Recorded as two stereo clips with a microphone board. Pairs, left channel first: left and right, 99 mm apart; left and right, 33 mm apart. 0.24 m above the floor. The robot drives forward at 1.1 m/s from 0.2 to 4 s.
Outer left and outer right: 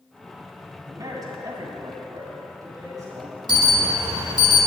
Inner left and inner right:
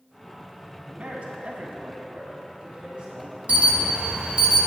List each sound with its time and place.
0.9 s a man speaking: 35° right (ahead or behind), 2.0 m; by 4.2 s 25° right (ahead or behind), 3 m
3.5 s an alarm: 45° right (ahead or behind), 1.2 m